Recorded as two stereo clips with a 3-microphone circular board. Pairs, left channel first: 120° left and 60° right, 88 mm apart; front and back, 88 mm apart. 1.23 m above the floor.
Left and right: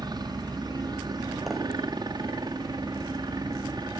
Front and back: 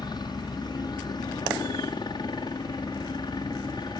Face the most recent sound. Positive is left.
turn(degrees=-30)